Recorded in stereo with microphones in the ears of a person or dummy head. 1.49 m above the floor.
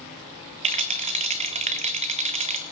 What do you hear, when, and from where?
0.6 s a rattle: 35° right (ahead or behind), 0.5 m